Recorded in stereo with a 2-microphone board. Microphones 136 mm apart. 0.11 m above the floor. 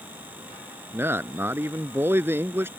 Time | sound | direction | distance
0.9 | a man speaking | 15° right (ahead or behind) | ?